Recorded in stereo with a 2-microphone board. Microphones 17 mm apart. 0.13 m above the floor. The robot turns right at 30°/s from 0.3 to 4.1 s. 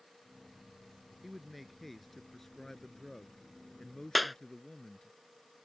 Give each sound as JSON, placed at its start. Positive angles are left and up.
{"t": 1.2, "sound": "a man speaking", "azimuth_deg": -20}
{"t": 4.2, "sound": "a clap", "side_deg": -5}